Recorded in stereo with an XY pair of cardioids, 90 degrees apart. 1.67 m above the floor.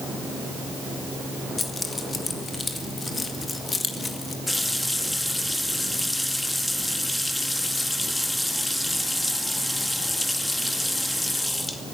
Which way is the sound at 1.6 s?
30° left.